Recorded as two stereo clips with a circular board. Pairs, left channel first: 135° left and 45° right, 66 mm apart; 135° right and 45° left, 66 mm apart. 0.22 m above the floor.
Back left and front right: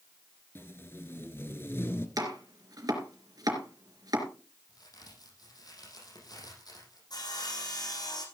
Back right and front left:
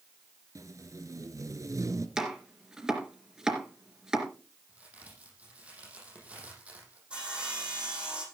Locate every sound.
0.6 s tape being pulled: 80° left, 1.4 m
2.2 s chopping: 35° right, 3.5 m
4.7 s a crack: 115° left, 6.5 m
7.1 s sawing: 120° left, 6 m